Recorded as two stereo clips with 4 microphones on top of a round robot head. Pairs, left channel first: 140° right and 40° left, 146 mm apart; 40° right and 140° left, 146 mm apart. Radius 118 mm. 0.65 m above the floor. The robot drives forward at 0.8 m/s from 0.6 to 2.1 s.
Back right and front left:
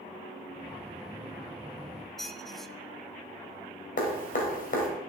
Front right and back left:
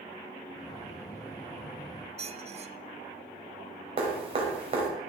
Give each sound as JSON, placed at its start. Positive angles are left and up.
{"t": 2.2, "sound": "a squeak", "azimuth_deg": 135, "distance_m": 0.7}
{"t": 4.0, "sound": "dripping", "azimuth_deg": -170, "distance_m": 2.5}